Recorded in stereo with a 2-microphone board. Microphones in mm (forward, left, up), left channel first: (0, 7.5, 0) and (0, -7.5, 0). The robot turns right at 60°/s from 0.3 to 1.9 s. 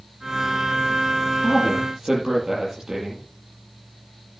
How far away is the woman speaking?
About 8.5 m.